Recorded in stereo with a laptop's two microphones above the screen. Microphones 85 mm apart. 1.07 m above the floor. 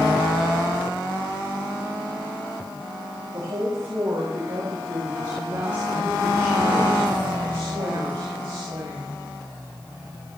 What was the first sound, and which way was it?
A woman speaking, 60° right (ahead or behind).